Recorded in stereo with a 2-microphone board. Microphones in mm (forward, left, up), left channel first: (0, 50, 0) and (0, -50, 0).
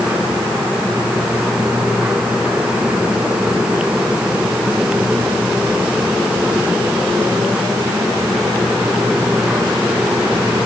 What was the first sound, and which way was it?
Only background noise.